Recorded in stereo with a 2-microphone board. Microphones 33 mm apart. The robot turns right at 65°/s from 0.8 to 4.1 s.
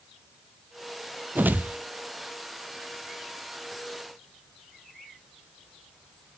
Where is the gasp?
No gasp in this recording.